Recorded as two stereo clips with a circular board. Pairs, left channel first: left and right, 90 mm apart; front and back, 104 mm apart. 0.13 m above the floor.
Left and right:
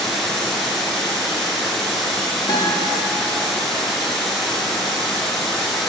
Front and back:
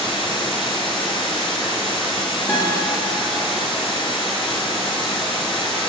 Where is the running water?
Straight ahead, 0.8 m.